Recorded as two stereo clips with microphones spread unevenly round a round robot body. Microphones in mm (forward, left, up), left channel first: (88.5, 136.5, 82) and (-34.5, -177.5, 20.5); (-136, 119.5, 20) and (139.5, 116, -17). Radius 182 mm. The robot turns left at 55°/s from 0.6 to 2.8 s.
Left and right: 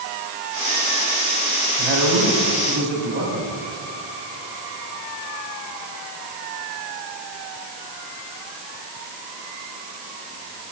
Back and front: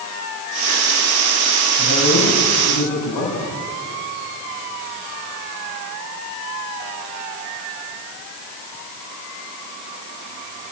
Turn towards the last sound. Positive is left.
turn(degrees=-170)